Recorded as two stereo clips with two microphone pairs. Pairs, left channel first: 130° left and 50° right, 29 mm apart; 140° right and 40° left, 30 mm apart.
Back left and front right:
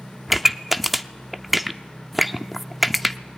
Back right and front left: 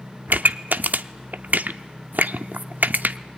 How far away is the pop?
About 0.7 m.